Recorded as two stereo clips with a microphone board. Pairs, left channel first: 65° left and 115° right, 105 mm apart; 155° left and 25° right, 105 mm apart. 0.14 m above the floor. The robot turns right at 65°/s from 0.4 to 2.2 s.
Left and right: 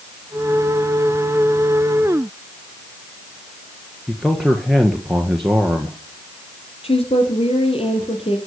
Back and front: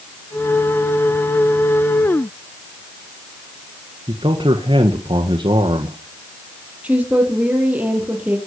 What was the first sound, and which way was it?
A man speaking, 25° right.